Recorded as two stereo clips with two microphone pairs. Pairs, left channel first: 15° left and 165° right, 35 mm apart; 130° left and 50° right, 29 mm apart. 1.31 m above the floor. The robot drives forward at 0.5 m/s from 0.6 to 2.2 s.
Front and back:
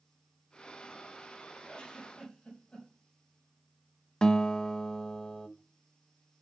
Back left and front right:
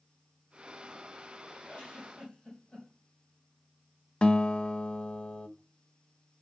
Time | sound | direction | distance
1.7 | a giggle | 75° left | 4.5 m
4.2 | a guitar | 75° left | 0.7 m